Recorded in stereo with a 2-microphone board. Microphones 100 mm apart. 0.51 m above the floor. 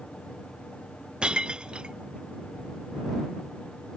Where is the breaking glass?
10° right (ahead or behind).